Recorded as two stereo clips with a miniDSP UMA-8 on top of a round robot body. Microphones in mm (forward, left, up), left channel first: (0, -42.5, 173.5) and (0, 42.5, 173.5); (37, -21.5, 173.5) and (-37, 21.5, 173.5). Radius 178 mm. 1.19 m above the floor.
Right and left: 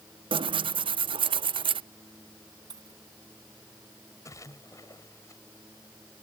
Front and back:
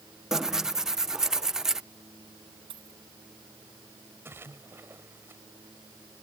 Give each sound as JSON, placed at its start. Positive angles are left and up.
{"t": 0.3, "sound": "tearing paper", "azimuth_deg": 65}
{"t": 2.7, "sound": "a dropped coin", "azimuth_deg": 135}
{"t": 4.2, "sound": "a splash", "azimuth_deg": -145}